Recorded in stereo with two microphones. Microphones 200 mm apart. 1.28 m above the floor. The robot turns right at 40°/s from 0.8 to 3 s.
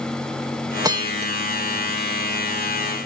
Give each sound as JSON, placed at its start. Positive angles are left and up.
{"t": 0.8, "sound": "a bell", "side_deg": -20}